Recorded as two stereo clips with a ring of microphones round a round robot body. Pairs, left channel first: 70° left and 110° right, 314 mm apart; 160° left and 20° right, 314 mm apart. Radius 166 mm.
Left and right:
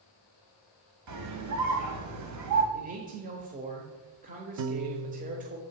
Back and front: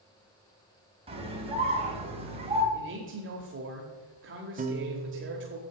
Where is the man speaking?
55° right, 1.4 m.